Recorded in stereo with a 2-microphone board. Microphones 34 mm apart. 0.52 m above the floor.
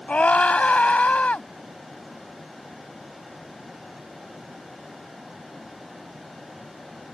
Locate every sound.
0.1 s a scream: 45° left (ahead or behind)